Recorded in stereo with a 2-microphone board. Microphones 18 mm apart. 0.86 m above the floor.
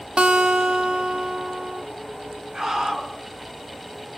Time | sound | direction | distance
0.2 | a guitar | 70° right (ahead or behind) | 1.5 m
2.5 | a scream | 50° right (ahead or behind) | 7.5 m